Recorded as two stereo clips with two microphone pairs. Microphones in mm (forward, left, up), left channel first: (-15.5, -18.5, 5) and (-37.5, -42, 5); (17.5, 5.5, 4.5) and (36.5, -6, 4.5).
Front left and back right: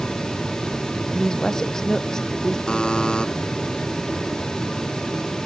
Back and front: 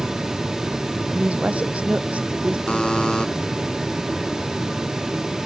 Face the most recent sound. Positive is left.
turn(degrees=105)